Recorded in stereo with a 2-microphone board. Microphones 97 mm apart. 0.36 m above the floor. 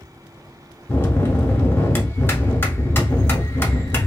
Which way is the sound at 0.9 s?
25° left (ahead or behind).